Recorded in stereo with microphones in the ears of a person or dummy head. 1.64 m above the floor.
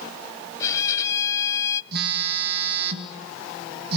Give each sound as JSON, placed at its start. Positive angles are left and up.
{"t": 0.6, "sound": "a violin", "side_deg": 15, "distance_m": 0.9}
{"t": 1.9, "sound": "a phone buzzing", "side_deg": -60, "distance_m": 2.5}